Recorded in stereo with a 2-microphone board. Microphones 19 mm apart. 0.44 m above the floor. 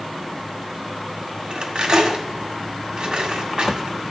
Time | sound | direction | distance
1.5 | cutlery clinking | 50° right (ahead or behind) | 1.8 m